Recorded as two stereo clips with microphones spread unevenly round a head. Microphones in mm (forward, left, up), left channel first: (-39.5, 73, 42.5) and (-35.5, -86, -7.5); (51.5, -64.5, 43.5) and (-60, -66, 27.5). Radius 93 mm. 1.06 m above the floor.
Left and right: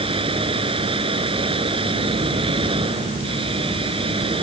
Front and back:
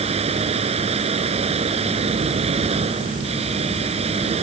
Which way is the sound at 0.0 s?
150° right.